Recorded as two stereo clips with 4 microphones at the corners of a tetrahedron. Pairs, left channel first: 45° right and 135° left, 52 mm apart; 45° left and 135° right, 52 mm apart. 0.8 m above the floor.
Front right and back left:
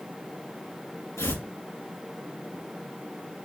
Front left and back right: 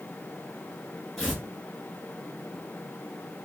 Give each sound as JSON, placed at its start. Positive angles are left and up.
{"t": 1.2, "sound": "tearing paper", "azimuth_deg": -35, "distance_m": 3.0}